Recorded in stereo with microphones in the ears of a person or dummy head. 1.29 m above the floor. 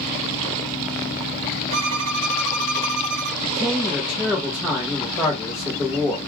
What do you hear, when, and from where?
1.7 s a violin: 80° right, 0.7 m
3.4 s a man speaking: centre (ahead or behind), 0.6 m